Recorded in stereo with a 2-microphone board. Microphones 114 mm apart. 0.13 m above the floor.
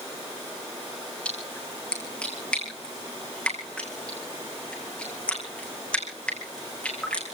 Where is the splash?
10° left (ahead or behind), 4 m.